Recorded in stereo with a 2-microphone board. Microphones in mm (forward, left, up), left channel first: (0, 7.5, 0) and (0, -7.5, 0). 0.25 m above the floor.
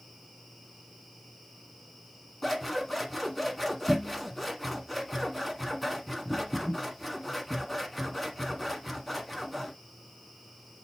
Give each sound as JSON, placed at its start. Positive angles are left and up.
{"t": 2.4, "sound": "scissors", "side_deg": 10, "distance_m": 1.5}